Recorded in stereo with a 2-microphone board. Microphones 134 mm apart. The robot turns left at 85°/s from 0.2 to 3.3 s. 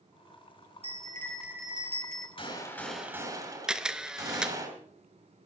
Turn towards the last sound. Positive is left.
turn(degrees=-5)  # may be behind; listen again after turning